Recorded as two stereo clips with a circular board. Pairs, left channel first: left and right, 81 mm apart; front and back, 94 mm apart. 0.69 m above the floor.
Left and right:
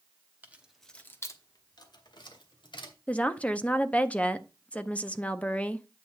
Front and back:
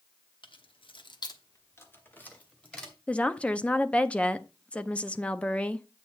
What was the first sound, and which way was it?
Keys jangling, 25° right.